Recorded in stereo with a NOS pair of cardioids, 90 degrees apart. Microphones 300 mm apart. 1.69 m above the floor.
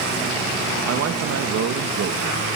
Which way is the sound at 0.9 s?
55° right.